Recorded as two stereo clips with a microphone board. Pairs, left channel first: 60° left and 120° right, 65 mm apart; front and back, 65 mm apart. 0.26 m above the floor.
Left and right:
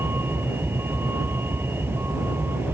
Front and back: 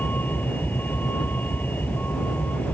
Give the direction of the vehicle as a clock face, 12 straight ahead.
2 o'clock.